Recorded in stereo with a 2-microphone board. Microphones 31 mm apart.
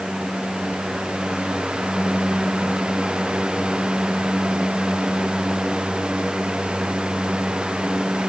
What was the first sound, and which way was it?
Only background noise.